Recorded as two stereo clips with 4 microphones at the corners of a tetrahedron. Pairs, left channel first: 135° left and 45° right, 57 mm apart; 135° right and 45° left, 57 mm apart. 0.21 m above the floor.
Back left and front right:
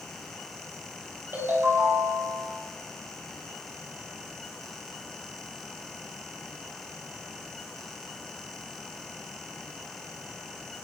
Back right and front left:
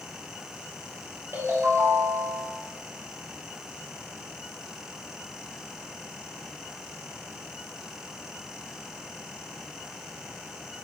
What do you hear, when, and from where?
1.3 s a ringtone: straight ahead, 3 m